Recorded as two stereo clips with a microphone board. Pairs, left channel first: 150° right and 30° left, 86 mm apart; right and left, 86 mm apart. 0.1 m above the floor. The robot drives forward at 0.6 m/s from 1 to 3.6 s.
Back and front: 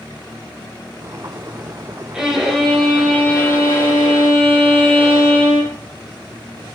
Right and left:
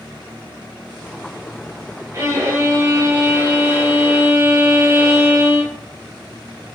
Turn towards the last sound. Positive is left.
turn(degrees=150)